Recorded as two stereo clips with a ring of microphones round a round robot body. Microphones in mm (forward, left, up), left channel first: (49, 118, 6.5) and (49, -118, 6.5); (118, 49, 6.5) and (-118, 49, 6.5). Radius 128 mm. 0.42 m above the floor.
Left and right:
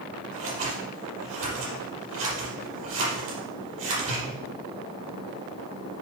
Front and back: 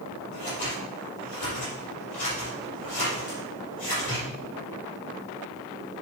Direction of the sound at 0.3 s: 65° right.